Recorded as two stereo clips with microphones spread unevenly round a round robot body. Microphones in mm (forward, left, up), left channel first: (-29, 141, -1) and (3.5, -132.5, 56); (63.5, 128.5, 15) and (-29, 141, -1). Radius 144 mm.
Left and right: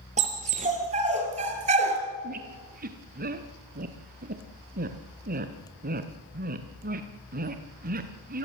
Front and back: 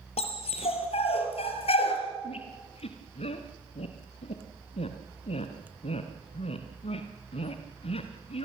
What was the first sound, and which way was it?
A dog barking, 15° right.